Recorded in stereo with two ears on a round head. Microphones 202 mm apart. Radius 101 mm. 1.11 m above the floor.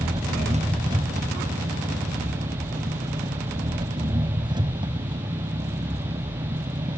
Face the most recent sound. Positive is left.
turn(degrees=-20)  # may be behind; listen again after turning